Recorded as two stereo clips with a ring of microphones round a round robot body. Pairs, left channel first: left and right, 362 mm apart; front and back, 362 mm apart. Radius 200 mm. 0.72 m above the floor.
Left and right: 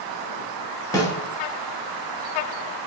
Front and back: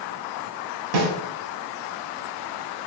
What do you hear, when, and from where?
0.9 s a snare drum: 170° left, 1.1 m